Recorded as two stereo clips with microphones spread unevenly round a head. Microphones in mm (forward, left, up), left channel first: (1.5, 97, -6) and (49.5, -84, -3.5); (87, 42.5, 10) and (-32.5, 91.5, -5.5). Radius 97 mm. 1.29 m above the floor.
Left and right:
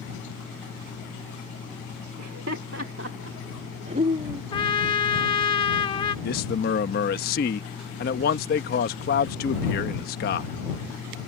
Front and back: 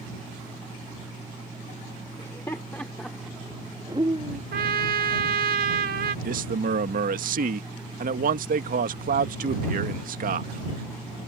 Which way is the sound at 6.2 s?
150° left.